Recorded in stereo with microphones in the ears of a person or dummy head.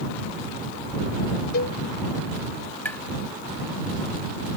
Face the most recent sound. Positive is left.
turn(degrees=15)  # may be behind; listen again after turning